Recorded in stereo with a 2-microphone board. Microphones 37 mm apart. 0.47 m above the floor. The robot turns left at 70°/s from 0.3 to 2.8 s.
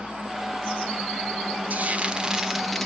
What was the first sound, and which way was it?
Frying, 110° right.